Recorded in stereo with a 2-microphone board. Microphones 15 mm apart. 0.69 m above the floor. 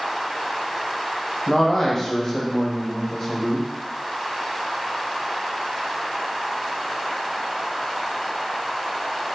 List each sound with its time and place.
1.5 s a man speaking: 25° left (ahead or behind), 0.7 m